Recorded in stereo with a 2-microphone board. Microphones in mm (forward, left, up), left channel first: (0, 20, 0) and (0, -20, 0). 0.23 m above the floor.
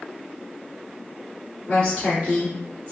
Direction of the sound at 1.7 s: 35° left (ahead or behind).